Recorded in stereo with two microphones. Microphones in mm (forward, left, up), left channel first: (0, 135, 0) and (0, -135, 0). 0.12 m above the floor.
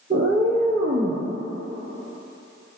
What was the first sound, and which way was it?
A cat meowing, 35° right (ahead or behind).